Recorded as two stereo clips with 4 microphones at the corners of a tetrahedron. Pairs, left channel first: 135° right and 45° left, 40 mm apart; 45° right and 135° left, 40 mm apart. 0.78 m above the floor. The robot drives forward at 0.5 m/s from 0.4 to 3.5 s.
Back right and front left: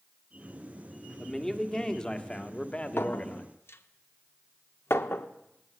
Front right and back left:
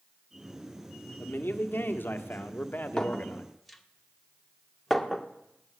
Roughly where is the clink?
Behind right.